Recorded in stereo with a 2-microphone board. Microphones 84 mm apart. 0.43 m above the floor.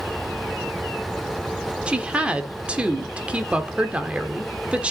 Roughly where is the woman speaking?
Centre.